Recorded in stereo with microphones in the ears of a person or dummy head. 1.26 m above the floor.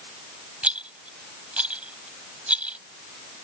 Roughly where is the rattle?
Centre.